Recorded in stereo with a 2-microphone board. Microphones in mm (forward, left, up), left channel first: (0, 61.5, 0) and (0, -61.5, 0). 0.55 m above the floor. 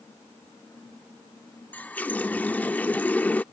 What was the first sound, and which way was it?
A running tap, 15° left (ahead or behind).